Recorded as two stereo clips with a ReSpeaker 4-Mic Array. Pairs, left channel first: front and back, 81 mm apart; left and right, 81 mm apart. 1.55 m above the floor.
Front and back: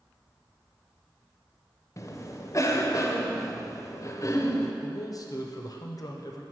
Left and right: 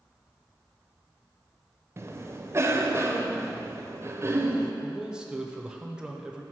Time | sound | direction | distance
2.0 | a cough | 40° right | 0.6 m
4.8 | a man speaking | 15° right | 0.5 m